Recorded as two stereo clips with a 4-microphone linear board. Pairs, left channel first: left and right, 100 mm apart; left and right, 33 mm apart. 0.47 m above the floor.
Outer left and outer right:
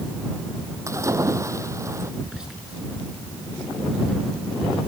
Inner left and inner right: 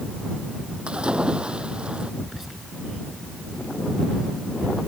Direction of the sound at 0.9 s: 30° right (ahead or behind).